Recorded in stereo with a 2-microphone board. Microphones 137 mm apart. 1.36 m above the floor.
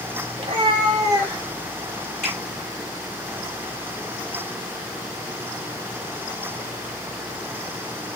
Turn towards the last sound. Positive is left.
turn(degrees=85)